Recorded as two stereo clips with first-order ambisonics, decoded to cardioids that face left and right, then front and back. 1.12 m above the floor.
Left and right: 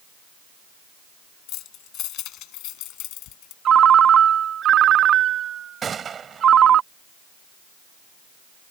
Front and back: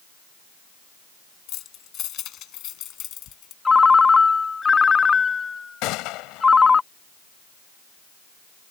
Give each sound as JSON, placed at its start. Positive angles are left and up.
{"t": 1.5, "sound": "keys jangling", "azimuth_deg": 45}
{"t": 3.6, "sound": "a ringtone", "azimuth_deg": -65}
{"t": 5.8, "sound": "a gunshot", "azimuth_deg": -25}